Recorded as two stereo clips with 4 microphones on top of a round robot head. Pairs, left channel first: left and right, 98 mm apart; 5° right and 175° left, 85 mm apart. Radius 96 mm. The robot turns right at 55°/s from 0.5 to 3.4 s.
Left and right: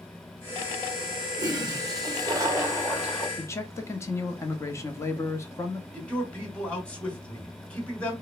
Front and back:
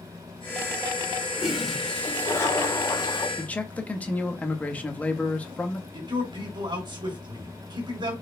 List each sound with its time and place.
1.4 s a toilet flushing: 110° right, 1.3 m; by 3.3 s 5° right, 1.3 m
3.4 s a man speaking: 55° left, 1.1 m
5.9 s a man speaking: 165° left, 2.5 m